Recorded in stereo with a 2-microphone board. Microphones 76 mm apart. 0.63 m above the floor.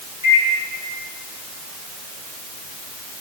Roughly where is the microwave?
Right.